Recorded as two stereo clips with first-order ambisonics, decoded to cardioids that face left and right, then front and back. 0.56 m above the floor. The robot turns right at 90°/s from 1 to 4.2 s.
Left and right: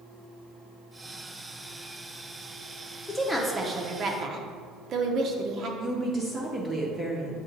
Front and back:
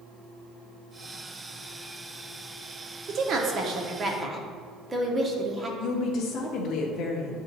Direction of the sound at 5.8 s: 20° right.